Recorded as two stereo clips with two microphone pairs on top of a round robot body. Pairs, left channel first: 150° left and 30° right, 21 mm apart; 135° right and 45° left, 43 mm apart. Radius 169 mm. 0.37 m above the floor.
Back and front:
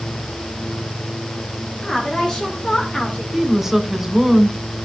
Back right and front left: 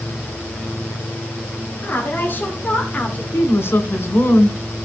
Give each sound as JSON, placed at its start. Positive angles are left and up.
{"t": 1.8, "sound": "a woman speaking", "azimuth_deg": -170, "distance_m": 3.0}
{"t": 3.3, "sound": "a woman speaking", "azimuth_deg": -115, "distance_m": 3.0}